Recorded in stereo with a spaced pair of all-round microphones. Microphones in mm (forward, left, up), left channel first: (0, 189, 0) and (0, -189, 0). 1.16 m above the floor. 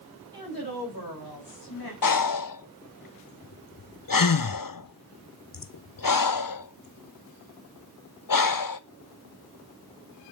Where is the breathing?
60° left (ahead or behind), 0.6 m.